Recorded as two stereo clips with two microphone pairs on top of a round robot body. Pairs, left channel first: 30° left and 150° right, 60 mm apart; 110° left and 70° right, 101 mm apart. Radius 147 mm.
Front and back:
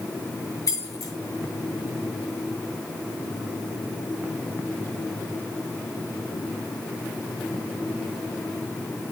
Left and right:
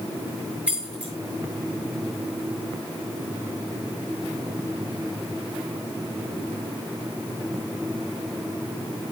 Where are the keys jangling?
10° left, 7 m.